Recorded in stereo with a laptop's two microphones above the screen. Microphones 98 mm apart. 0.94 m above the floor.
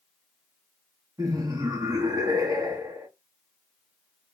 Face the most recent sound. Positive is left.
turn(degrees=-40)  # may be behind; listen again after turning